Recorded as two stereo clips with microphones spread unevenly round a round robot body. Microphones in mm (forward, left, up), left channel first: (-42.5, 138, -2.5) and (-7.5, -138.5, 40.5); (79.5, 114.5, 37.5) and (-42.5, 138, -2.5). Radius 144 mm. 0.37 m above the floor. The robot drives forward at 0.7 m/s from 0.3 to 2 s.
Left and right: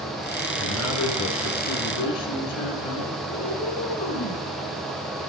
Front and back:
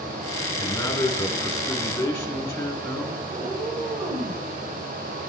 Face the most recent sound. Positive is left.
turn(degrees=120)